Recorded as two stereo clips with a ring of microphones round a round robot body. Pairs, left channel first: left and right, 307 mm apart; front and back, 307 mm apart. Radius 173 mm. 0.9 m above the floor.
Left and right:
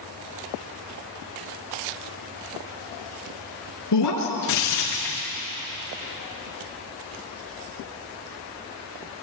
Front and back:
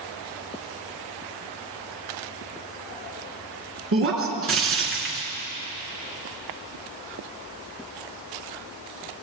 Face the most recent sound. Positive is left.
turn(degrees=135)